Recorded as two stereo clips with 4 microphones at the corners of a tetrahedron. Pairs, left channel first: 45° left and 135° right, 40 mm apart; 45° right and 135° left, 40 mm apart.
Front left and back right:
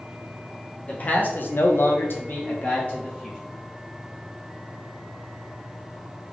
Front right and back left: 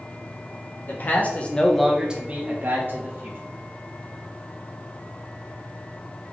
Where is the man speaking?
10° right, 1.0 m; by 3.4 s 110° left, 1.5 m.